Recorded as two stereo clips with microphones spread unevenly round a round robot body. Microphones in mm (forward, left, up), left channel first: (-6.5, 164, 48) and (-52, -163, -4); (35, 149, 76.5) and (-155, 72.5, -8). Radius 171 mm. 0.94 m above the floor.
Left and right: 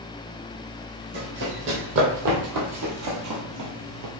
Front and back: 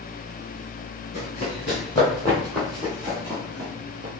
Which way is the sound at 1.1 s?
35° right.